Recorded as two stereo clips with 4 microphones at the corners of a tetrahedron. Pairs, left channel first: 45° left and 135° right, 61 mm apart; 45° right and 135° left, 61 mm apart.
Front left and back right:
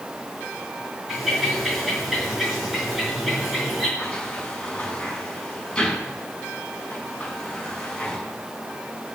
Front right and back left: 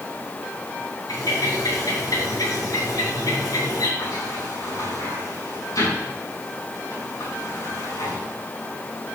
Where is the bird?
50° right, 5 m.